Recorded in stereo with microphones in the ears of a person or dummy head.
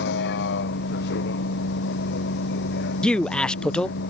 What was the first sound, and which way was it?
A vehicle, 60° left (ahead or behind).